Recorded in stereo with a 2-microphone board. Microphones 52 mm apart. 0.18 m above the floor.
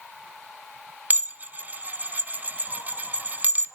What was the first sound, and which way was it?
Dishes clattering, 35° right (ahead or behind).